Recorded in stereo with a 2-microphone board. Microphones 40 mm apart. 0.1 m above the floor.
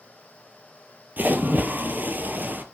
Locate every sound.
1.2 s a splash: 55° right (ahead or behind), 0.8 m